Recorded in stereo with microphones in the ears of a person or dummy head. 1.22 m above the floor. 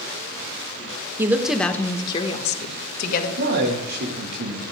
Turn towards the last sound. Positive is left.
turn(degrees=-55)  # may be behind; listen again after turning